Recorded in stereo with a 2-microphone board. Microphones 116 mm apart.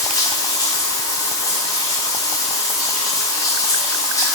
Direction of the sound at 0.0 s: 30° left (ahead or behind).